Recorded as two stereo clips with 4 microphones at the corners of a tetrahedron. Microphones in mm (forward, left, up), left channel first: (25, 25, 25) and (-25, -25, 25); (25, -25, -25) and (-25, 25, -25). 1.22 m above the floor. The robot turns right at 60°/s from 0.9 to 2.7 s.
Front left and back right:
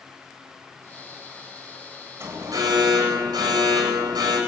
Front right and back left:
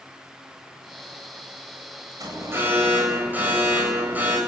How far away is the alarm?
About 8.5 m.